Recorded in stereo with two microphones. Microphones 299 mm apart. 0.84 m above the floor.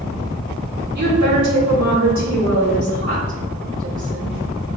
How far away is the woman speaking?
About 2.0 m.